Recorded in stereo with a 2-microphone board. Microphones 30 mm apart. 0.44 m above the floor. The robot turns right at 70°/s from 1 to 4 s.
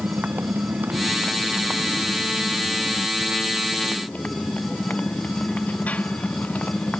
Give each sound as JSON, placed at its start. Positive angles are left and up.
{"t": 0.0, "sound": "a motorcycle", "azimuth_deg": -80}